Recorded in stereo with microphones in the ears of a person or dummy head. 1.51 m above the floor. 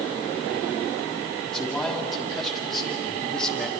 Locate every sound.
1.4 s a man speaking: centre (ahead or behind), 5 m